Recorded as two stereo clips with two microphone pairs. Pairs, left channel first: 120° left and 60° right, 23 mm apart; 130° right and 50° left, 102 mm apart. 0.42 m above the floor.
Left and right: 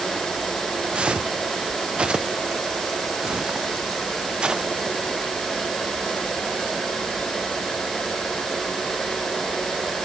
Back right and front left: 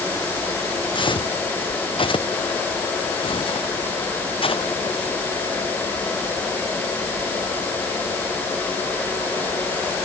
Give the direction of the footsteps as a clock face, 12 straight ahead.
3 o'clock.